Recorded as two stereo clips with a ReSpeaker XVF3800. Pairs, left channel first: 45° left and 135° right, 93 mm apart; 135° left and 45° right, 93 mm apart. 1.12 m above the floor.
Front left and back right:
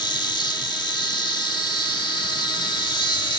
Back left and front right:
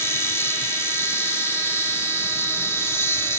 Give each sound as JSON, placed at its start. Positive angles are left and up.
{"t": 0.0, "sound": "an insect", "azimuth_deg": 75}